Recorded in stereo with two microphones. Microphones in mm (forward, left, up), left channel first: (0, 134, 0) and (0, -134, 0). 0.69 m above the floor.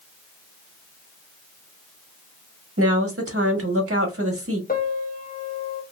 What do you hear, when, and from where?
2.8 s a woman speaking: 55° right (ahead or behind), 1.3 m
4.7 s a piano: 35° left (ahead or behind), 0.7 m